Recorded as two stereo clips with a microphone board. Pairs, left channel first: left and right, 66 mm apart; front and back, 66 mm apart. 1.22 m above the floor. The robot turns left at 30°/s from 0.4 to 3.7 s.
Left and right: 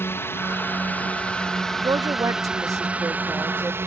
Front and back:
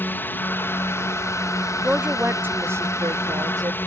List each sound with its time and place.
0.0 s a drone: 50° left; by 3.9 s 50° right
1.8 s a woman speaking: 100° right; by 3.8 s 155° right